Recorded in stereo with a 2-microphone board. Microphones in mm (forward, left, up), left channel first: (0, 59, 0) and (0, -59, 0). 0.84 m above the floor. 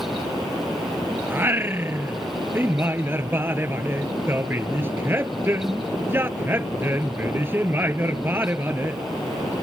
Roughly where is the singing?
Centre.